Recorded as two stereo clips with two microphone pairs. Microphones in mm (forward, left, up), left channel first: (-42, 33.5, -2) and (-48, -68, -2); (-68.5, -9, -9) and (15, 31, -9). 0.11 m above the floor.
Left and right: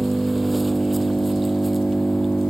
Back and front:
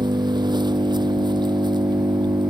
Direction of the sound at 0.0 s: 5° right.